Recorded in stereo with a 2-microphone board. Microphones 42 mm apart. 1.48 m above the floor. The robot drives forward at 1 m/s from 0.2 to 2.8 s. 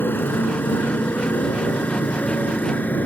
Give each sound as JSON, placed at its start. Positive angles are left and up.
{"t": 0.0, "sound": "a motorcycle", "side_deg": 55}